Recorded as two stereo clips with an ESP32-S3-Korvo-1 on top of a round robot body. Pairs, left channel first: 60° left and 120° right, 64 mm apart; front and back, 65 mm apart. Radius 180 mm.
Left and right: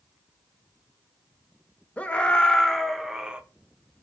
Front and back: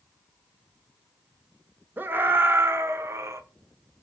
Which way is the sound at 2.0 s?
125° left.